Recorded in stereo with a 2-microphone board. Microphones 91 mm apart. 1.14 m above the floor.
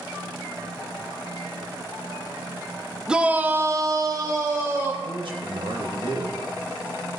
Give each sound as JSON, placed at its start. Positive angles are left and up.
{"t": 3.1, "sound": "a shout", "side_deg": -10, "distance_m": 1.1}
{"t": 5.0, "sound": "a man speaking", "side_deg": -60, "distance_m": 1.9}